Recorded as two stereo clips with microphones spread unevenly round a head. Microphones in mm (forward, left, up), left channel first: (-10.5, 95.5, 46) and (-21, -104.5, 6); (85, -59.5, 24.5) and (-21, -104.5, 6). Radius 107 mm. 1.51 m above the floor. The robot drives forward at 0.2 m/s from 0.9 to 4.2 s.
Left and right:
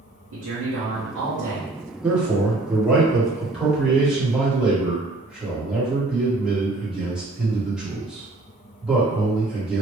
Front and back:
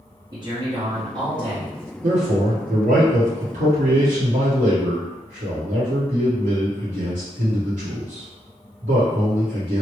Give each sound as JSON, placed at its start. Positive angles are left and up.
{"t": 0.3, "sound": "a man speaking", "azimuth_deg": -95, "distance_m": 1.1}
{"t": 2.0, "sound": "a man speaking", "azimuth_deg": 180, "distance_m": 1.2}